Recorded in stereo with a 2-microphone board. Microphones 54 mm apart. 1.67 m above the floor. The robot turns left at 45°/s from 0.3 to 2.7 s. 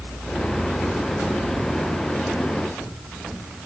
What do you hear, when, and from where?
Only background noise.